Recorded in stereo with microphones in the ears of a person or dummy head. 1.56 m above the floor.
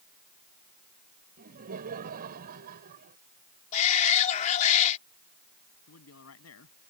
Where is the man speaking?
85° left.